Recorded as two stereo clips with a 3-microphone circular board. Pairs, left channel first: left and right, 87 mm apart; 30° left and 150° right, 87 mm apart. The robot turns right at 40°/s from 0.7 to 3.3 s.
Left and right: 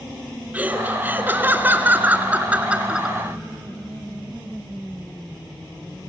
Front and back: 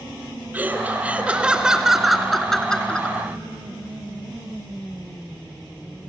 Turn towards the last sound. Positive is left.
turn(degrees=-20)